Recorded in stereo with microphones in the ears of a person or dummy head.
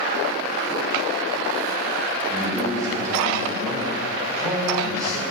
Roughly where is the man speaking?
Centre.